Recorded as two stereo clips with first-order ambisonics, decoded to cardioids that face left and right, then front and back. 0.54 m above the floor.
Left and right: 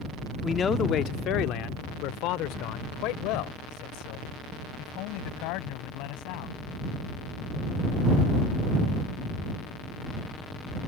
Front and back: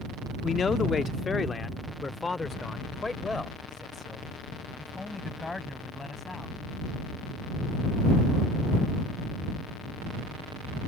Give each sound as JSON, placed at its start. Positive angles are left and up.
{"t": 0.4, "sound": "a man speaking", "azimuth_deg": 35}